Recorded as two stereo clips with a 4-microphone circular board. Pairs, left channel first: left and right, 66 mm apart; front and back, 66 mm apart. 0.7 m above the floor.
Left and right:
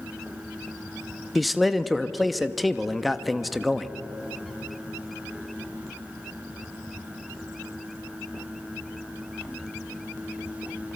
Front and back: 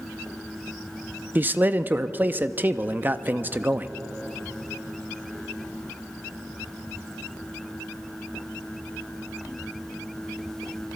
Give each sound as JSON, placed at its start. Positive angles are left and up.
{"t": 1.4, "sound": "a man speaking", "azimuth_deg": 180, "distance_m": 0.5}